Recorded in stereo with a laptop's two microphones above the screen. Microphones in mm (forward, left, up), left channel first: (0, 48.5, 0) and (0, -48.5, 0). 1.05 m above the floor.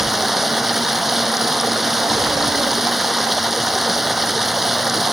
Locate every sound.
0.0 s running water: 5° right (ahead or behind)